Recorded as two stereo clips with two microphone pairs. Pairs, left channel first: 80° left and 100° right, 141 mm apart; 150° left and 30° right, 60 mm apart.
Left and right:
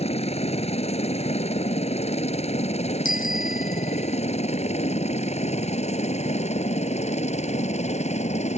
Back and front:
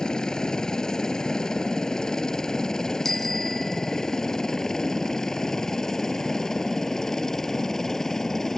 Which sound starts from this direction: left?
A helicopter, at 0.0 s.